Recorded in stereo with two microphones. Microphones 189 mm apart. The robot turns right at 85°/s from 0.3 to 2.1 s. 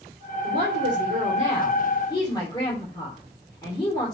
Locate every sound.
0.4 s a woman speaking: 120° right, 3 m; by 4.2 s 25° left, 3 m